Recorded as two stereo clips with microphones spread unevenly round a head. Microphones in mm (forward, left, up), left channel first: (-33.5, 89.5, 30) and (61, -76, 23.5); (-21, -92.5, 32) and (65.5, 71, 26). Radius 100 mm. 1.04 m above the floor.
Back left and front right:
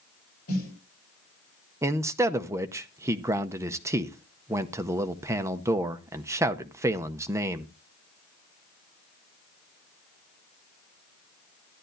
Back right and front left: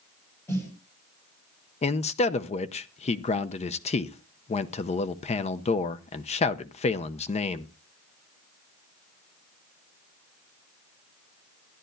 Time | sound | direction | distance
0.5 | a snare drum | 165° left | 5.5 m
1.8 | a man speaking | 120° right | 0.6 m